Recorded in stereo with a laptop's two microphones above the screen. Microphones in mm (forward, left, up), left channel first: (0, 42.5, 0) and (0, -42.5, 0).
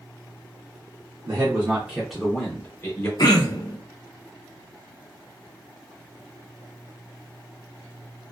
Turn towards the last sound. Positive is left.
turn(degrees=55)  # may be behind; listen again after turning